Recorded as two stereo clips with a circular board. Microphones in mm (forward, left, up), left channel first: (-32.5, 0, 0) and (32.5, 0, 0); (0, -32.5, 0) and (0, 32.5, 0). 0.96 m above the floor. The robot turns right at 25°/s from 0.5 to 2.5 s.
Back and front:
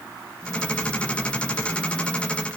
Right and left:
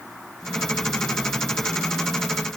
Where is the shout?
I don't hear a shout.